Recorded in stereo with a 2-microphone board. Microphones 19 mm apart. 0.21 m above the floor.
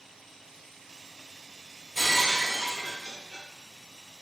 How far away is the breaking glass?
About 1.2 m.